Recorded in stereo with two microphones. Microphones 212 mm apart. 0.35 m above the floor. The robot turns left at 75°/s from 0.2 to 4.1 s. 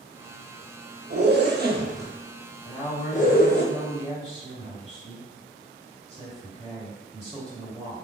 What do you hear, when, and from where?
1.1 s a zipper: 50° right (ahead or behind), 0.5 m; by 3.6 s 55° left (ahead or behind), 0.5 m
2.6 s a woman speaking: 40° left, 1.5 m; by 8.0 s 65° right, 1.5 m